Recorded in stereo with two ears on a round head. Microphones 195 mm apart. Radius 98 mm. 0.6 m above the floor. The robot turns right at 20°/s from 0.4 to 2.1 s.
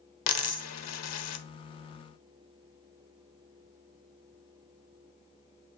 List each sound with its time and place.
0.3 s a dropped coin: 70° left (ahead or behind), 1.1 m; by 1.4 s 80° left, 1.1 m